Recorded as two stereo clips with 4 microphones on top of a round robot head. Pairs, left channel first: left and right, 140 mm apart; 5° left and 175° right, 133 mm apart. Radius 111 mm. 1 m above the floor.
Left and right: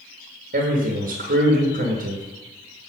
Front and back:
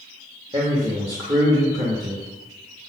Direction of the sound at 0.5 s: 110° right.